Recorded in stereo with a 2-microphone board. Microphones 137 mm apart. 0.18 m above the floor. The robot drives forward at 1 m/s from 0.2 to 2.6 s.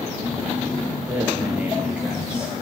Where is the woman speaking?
10° right (ahead or behind), 3 m.